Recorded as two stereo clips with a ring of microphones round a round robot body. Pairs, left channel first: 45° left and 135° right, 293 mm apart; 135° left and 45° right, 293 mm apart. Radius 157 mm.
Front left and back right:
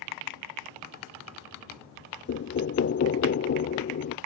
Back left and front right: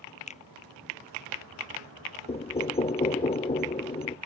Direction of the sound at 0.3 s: 65° left.